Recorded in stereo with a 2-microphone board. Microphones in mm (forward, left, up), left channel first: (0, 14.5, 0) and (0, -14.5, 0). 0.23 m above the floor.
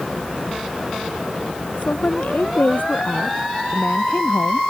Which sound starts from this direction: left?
A woman speaking, at 1.8 s.